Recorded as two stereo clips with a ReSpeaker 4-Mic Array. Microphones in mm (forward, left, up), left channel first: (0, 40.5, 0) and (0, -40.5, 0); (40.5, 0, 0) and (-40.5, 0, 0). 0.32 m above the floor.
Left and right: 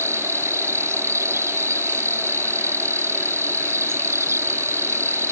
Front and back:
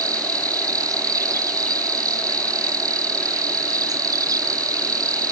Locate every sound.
0.0 s an insect: 145° right